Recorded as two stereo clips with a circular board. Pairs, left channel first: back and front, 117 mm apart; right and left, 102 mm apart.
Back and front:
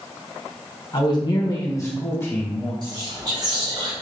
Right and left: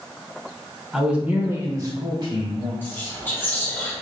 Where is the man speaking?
175° left, 0.9 m; by 2.7 s 105° left, 1.4 m.